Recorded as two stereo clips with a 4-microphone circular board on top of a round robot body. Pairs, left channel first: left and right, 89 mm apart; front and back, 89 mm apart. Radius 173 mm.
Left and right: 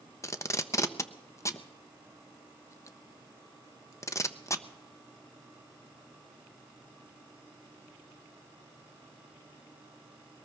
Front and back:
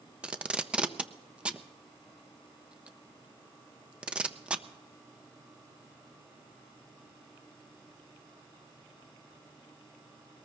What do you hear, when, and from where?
0.2 s tape being pulled: 110° left, 0.7 m